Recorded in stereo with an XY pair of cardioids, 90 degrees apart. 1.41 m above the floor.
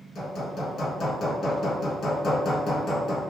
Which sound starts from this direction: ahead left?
Hammering, at 0.1 s.